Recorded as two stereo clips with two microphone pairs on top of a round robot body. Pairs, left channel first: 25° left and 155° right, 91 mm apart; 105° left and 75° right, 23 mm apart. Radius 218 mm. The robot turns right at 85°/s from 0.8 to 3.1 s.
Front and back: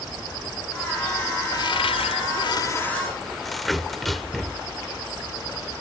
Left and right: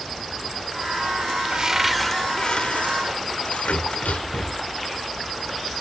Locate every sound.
1.5 s a cupboard door: 20° right; by 4.7 s 115° left